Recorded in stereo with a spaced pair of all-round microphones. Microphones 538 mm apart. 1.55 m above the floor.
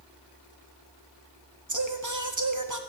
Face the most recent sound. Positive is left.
turn(degrees=-35)  # may be behind; listen again after turning